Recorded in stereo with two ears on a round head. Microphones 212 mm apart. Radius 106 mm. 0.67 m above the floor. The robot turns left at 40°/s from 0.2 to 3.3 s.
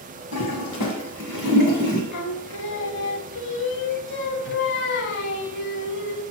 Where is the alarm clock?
I don't hear an alarm clock.